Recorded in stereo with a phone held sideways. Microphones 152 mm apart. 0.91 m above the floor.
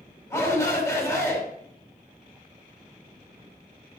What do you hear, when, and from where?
0.3 s a shout: 20° left (ahead or behind), 5 m